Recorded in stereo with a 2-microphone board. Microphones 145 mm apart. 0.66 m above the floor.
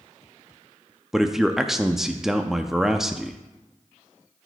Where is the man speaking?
5° right (ahead or behind), 0.6 m.